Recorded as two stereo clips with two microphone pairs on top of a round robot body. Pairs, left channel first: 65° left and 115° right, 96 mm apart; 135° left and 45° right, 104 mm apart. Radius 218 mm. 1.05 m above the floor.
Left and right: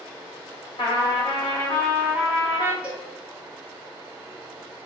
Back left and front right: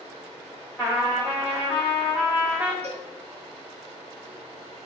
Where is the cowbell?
35° right, 1.5 m.